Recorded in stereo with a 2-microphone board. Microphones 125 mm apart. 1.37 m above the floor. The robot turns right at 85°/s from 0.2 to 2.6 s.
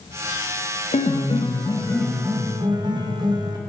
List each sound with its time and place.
0.9 s a piano: 80° left, 0.8 m; by 3.6 s 140° right, 0.8 m